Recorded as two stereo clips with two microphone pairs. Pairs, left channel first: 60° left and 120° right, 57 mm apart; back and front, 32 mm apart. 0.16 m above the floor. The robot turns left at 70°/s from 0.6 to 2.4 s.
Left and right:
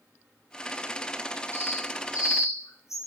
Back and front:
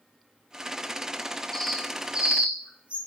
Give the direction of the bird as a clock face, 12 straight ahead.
9 o'clock.